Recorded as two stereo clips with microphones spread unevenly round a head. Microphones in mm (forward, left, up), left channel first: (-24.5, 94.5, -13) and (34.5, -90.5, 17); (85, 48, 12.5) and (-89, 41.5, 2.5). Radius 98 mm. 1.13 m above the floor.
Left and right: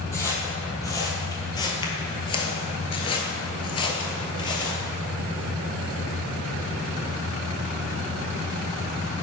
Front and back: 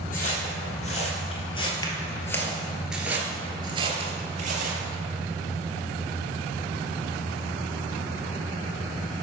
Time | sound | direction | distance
0.1 | footsteps | 25° left | 1.9 m